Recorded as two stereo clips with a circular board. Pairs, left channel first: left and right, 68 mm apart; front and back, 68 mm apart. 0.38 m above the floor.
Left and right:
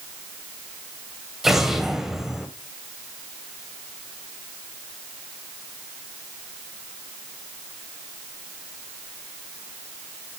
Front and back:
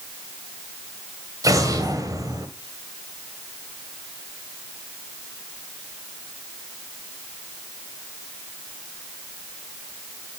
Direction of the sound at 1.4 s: 170° right.